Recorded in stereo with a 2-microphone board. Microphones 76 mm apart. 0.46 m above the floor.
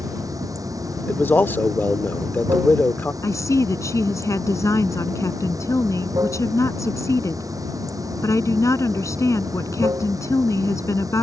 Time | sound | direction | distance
0.0 | running water | 50° right (ahead or behind) | ?
1.1 | a man speaking | 30° left (ahead or behind) | ?
3.2 | a woman speaking | 45° left (ahead or behind) | ?